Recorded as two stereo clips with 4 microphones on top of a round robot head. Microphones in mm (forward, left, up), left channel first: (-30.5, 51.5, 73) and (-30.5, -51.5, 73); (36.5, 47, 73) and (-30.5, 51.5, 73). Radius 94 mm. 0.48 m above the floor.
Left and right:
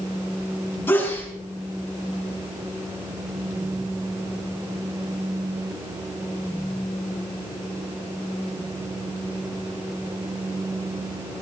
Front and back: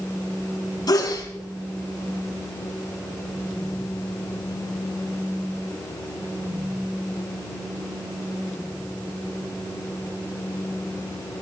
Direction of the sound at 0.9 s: 20° left.